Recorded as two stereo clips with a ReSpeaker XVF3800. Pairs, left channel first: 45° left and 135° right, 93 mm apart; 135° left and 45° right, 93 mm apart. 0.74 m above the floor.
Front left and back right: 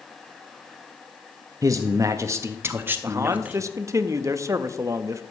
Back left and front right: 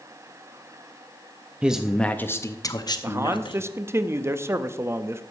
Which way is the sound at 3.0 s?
95° right.